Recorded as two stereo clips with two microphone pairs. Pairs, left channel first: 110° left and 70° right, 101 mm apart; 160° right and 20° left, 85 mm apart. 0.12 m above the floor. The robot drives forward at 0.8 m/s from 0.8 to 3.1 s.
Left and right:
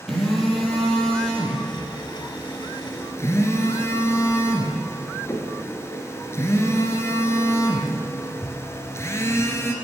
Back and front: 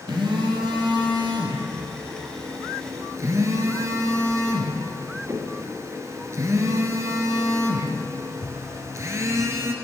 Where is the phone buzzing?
25° left, 3 m; by 9.8 s 60° left, 1.5 m.